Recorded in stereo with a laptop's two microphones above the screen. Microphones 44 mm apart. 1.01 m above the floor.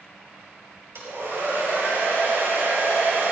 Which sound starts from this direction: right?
A hair dryer, at 0.9 s.